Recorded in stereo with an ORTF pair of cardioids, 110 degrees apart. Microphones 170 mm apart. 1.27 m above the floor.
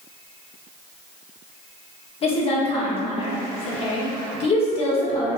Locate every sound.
2.2 s a woman speaking: 35° left, 1.2 m